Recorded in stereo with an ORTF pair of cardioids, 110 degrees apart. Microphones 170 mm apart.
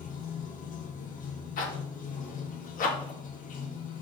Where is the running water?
55° left, 1.5 m.